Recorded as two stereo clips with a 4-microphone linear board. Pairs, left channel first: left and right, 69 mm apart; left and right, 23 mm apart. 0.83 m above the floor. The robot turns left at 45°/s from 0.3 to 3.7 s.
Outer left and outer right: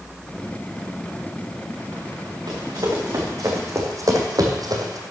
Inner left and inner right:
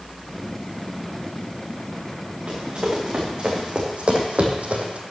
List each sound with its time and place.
2.5 s running footsteps: 75° right (ahead or behind), 3.5 m; by 5.0 s 60° right (ahead or behind), 1.7 m